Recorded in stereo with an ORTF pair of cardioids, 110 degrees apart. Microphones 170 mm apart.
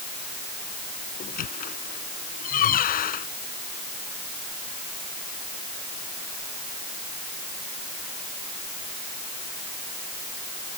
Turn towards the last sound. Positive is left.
turn(degrees=55)